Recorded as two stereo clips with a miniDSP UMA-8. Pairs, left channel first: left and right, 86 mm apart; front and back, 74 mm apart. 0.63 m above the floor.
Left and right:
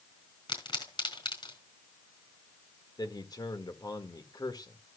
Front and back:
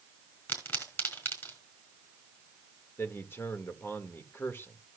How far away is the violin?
I don't hear a violin.